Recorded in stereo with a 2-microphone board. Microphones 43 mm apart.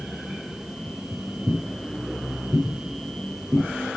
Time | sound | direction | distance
0.9 | footsteps | 85° right | 5.5 m